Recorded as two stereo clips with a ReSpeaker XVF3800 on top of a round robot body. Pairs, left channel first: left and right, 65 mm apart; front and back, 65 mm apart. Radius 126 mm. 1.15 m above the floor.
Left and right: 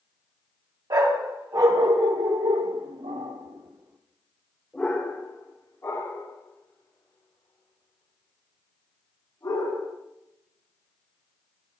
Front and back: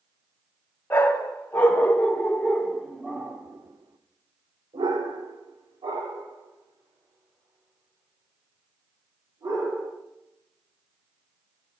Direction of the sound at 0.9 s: 60° right.